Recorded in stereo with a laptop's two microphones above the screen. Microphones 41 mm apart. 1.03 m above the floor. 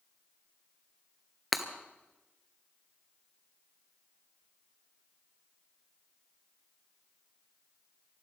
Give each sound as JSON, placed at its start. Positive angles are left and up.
{"t": 1.5, "sound": "breaking glass", "side_deg": -5, "distance_m": 1.1}